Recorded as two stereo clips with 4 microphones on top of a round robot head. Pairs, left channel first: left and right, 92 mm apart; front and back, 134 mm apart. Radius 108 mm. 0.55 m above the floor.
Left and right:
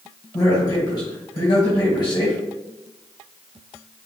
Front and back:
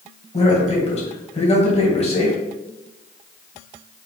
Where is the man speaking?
40° left, 2.5 m.